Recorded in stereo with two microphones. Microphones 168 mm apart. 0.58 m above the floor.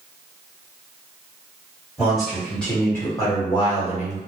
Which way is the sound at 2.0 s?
5° right (ahead or behind).